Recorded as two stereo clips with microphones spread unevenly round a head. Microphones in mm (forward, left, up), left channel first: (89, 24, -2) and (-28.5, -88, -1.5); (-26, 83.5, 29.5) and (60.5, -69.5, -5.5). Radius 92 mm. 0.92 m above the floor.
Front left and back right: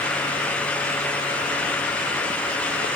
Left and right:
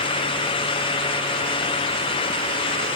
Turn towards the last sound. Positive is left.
No sound to turn to.